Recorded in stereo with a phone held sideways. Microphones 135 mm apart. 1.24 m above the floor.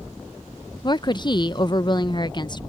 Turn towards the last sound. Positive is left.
turn(degrees=35)  # may be behind; listen again after turning